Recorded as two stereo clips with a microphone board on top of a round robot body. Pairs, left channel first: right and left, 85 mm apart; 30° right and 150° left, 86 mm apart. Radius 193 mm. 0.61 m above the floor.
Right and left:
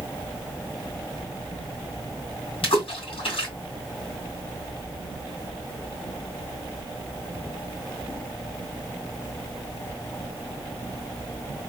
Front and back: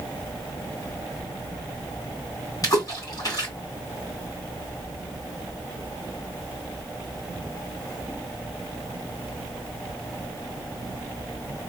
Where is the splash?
75° right, 3 m.